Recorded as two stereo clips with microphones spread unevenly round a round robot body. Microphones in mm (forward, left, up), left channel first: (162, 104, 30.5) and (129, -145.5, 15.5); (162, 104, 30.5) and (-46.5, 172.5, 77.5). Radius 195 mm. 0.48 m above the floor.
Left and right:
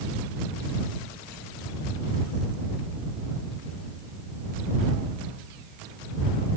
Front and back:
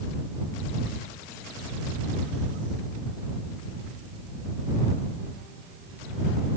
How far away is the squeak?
I don't hear a squeak.